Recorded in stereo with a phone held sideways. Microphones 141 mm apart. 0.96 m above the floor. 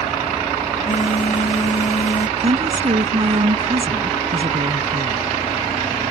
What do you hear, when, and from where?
0.8 s a phone buzzing: 65° left (ahead or behind)
2.4 s a woman speaking: 50° right (ahead or behind)